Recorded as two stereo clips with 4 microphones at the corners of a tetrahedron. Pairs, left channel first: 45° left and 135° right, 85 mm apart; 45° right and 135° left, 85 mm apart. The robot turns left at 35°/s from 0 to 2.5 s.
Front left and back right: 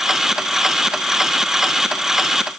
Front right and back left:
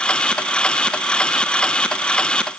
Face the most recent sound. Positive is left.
No sound to turn to.